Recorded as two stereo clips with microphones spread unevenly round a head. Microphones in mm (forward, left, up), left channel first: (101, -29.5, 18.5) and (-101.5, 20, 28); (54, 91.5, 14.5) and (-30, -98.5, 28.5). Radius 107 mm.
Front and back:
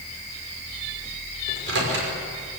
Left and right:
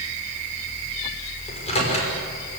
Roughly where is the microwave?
Behind left.